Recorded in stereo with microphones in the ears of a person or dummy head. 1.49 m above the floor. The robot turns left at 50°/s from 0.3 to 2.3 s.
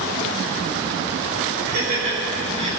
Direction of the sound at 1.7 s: 60° right (ahead or behind).